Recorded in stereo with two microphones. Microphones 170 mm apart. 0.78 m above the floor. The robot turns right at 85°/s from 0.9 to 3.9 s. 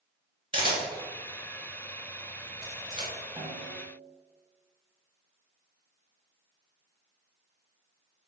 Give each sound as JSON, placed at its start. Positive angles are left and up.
{"t": 0.5, "sound": "a camera shutter", "side_deg": -30, "distance_m": 1.7}
{"t": 3.4, "sound": "a snare drum", "azimuth_deg": -145, "distance_m": 1.6}